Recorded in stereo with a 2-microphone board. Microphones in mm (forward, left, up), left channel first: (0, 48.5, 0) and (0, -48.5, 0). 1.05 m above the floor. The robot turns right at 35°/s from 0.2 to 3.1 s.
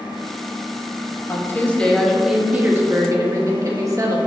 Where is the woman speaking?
150° left, 1.3 m; by 4.2 s 145° right, 1.3 m.